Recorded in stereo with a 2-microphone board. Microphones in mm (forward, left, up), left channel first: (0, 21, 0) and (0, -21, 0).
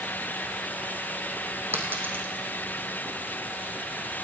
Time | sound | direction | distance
1.7 | a dropped coin | 60° right (ahead or behind) | 2.5 m